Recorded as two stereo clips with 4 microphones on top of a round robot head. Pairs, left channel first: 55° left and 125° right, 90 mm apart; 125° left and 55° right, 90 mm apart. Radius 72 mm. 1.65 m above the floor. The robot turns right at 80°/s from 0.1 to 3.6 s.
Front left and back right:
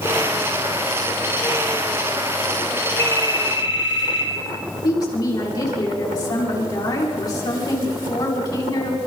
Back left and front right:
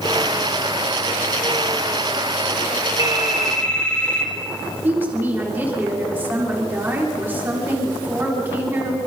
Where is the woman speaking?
10° left, 5.5 m.